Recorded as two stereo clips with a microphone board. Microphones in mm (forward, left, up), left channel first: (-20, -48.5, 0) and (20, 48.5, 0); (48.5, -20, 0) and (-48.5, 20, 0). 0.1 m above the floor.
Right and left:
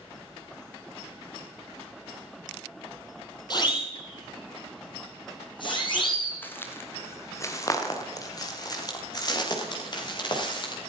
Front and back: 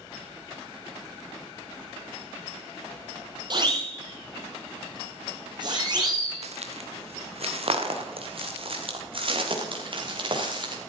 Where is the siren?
160° right, 4 m; by 6.4 s 155° right, 6 m.